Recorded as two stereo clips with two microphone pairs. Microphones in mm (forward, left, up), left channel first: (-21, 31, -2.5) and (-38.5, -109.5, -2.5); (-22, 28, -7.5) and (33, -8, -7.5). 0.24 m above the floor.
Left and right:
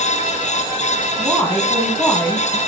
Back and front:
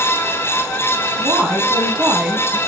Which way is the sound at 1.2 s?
5° right.